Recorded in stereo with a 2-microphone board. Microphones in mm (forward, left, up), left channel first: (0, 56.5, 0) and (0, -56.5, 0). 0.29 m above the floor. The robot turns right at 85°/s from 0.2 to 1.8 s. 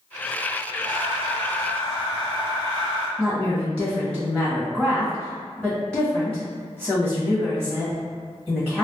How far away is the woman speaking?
About 1.3 m.